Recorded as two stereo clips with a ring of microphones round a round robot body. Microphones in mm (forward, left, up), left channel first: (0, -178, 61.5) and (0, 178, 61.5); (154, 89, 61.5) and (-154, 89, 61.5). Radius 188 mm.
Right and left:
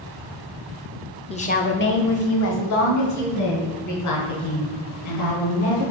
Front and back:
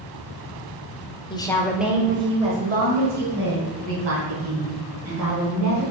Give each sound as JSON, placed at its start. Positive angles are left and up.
{"t": 1.3, "sound": "a woman speaking", "azimuth_deg": -45, "distance_m": 0.9}